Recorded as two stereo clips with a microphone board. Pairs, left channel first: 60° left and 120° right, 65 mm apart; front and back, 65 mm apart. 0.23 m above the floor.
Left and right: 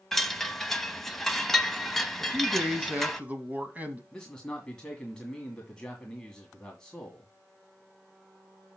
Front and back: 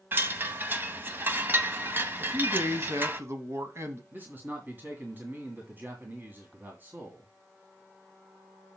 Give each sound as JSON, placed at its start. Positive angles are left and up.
{"t": 0.1, "sound": "a chime", "azimuth_deg": 145, "distance_m": 0.9}
{"t": 2.2, "sound": "a man speaking", "azimuth_deg": -175, "distance_m": 1.4}
{"t": 4.1, "sound": "a man speaking", "azimuth_deg": 135, "distance_m": 2.0}